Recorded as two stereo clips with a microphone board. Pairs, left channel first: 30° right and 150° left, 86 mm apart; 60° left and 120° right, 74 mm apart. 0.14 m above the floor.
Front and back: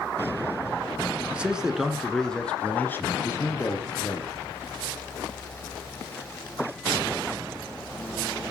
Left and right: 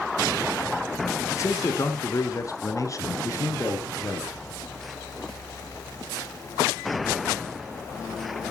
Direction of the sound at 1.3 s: 80° left.